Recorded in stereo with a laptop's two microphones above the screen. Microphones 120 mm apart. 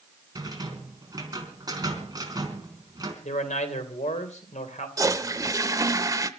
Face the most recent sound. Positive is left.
turn(degrees=-30)  # may be behind; listen again after turning